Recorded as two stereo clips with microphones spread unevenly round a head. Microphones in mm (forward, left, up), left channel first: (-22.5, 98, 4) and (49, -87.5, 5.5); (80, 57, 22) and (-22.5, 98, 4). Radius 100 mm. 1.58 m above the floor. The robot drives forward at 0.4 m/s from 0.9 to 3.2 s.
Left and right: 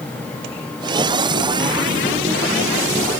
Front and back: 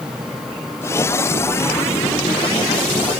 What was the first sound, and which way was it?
Only background noise.